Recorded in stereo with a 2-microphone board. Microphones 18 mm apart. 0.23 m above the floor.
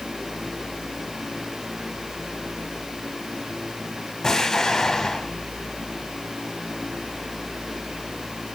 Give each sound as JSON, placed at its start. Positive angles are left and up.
{"t": 4.2, "sound": "an explosion", "side_deg": 30, "distance_m": 1.8}